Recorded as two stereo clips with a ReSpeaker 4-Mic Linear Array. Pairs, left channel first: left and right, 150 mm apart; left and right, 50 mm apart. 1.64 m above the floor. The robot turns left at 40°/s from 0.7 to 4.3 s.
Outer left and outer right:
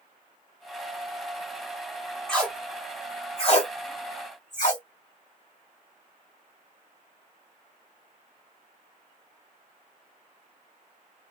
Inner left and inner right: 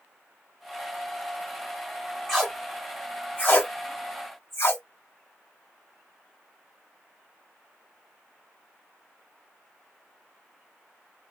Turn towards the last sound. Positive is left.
turn(degrees=55)  # may be behind; listen again after turning